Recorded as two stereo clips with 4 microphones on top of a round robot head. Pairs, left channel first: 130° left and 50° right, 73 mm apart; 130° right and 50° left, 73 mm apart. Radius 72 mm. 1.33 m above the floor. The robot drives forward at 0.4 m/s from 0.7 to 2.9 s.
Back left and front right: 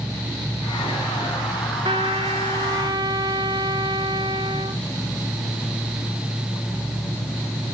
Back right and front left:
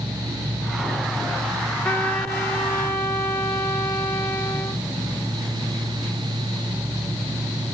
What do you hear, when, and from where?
1.9 s a trumpet: 55° right, 1.3 m; by 4.8 s 80° right, 1.2 m